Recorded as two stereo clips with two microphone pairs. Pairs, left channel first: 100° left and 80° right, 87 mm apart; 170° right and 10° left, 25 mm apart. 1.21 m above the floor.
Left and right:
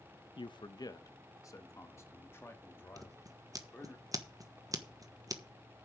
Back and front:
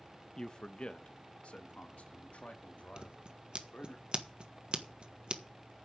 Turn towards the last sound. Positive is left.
turn(degrees=-35)